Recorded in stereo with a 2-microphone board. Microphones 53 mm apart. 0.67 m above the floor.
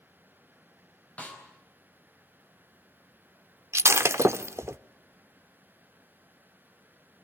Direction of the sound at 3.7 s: 60° right (ahead or behind).